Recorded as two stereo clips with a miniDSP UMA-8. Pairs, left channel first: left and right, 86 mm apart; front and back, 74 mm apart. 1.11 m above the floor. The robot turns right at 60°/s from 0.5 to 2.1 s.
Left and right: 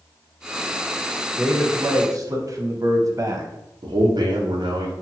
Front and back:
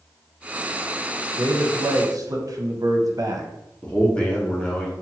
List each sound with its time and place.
1.4 s a man speaking: 175° left, 0.5 m; by 3.5 s 140° right, 0.5 m
3.8 s a man speaking: 75° right, 0.6 m